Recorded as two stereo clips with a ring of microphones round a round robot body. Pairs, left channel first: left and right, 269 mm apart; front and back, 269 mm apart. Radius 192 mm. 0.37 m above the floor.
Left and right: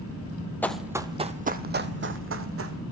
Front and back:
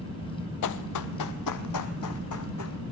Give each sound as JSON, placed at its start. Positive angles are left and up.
{"t": 0.6, "sound": "running footsteps", "azimuth_deg": 5, "distance_m": 0.8}